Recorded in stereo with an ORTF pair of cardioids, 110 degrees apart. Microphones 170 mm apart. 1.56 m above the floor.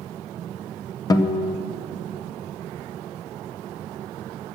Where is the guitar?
25° left, 0.8 m.